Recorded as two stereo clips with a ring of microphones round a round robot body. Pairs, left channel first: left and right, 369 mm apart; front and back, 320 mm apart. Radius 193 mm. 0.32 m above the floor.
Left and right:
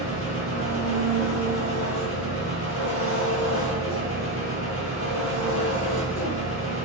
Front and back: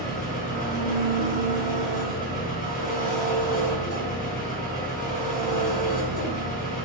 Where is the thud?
No thud in this recording.